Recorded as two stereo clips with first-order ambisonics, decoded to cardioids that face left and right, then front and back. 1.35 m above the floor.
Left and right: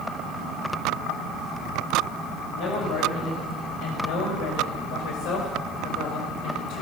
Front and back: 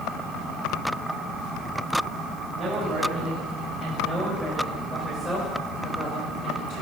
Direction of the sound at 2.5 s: 110° left.